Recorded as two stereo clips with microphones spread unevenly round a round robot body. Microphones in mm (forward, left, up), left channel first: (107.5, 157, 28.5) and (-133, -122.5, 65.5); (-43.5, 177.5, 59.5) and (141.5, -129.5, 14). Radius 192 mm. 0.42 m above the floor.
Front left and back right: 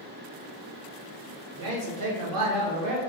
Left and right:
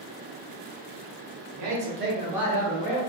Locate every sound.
1.5 s a man speaking: 75° right, 1.3 m; by 3.0 s 175° right, 1.3 m